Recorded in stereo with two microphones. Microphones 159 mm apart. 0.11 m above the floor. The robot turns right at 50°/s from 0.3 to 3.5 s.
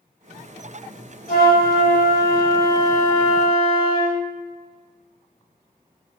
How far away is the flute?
About 1.2 m.